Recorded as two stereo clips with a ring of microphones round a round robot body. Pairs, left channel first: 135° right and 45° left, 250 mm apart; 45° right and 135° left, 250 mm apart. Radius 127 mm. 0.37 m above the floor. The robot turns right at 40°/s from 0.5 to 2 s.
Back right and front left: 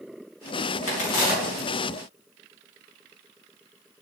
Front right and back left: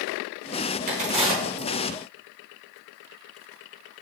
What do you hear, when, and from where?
0.9 s a crack: 170° right, 4 m; by 1.7 s 140° right, 4 m